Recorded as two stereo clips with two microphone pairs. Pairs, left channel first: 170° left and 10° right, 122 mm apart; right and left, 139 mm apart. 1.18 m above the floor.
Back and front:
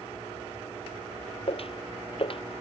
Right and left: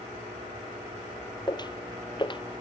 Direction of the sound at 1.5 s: 150° right.